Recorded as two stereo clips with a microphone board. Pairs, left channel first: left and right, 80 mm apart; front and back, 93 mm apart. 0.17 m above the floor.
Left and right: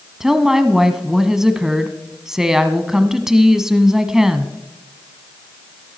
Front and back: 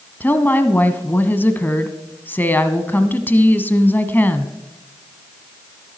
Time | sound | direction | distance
0.2 | a woman speaking | 15° right | 1.0 m